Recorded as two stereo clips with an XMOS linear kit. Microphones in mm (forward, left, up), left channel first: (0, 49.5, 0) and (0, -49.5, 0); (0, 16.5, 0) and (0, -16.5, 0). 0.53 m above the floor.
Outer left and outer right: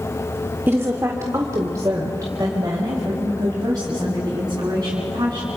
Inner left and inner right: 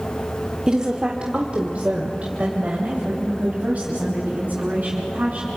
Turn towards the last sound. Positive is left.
turn(degrees=-40)  # may be behind; listen again after turning